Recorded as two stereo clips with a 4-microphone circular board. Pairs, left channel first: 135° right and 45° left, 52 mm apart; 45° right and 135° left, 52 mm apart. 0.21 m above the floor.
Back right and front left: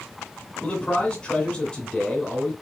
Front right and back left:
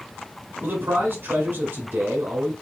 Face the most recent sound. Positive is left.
turn(degrees=155)